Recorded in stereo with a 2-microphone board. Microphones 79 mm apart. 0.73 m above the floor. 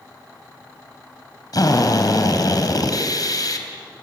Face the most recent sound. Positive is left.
turn(degrees=60)  # may be behind; listen again after turning